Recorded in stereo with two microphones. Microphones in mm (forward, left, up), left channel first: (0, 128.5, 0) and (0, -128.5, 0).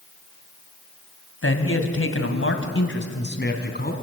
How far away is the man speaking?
About 2 m.